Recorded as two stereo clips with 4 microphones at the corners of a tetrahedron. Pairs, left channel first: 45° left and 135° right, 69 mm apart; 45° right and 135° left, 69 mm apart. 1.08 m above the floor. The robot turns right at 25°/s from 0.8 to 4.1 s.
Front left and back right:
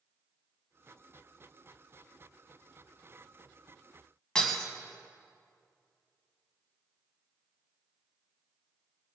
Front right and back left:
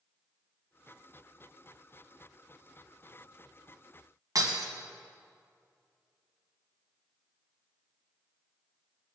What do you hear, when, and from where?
4.3 s breaking glass: 120° left, 2.0 m